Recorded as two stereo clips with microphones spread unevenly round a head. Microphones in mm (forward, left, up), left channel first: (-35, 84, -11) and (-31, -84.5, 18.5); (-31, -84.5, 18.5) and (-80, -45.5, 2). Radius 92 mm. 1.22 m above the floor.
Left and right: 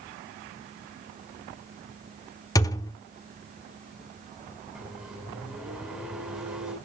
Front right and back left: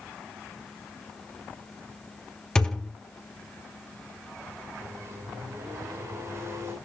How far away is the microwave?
About 7 m.